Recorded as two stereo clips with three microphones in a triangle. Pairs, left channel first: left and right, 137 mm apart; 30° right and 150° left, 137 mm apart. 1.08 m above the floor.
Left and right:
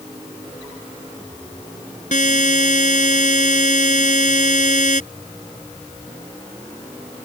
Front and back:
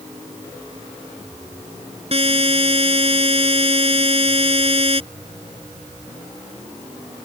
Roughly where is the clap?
No clap in this recording.